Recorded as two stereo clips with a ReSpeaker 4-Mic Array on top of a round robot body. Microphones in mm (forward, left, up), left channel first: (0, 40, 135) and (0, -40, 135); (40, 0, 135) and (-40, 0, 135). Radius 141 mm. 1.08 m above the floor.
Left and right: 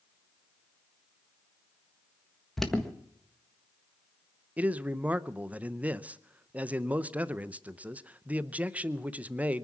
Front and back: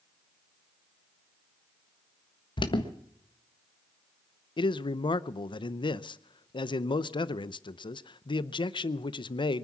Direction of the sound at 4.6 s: 15° right.